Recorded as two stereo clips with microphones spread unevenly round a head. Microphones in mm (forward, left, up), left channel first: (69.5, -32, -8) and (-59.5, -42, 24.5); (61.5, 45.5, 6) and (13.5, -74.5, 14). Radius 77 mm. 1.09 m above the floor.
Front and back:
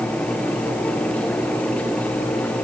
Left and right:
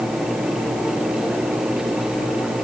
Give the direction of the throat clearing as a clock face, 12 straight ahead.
I don't hear throat clearing.